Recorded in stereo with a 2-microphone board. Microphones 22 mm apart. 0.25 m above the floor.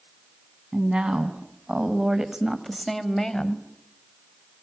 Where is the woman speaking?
60° right (ahead or behind), 2.5 m; by 3.7 s 30° left (ahead or behind), 1.4 m.